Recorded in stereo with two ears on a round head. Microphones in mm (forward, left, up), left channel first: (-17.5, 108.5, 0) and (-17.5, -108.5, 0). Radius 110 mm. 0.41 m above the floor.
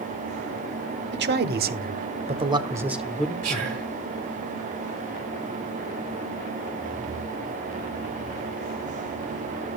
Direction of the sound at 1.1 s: 45° right (ahead or behind).